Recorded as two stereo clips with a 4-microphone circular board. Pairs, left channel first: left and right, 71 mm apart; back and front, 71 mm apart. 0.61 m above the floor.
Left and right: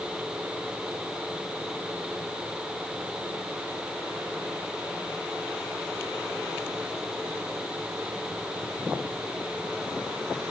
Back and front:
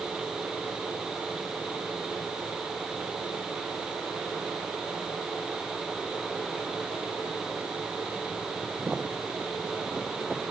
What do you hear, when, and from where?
Only background noise.